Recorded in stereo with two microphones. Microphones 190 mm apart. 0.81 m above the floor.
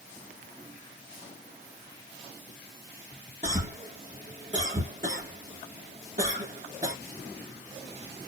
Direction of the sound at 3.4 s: 40° right (ahead or behind).